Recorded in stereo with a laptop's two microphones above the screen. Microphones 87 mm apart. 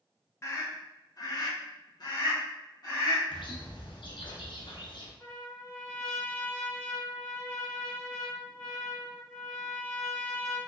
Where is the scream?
30° left (ahead or behind), 1.1 m; by 3.2 s 50° left (ahead or behind), 1.6 m.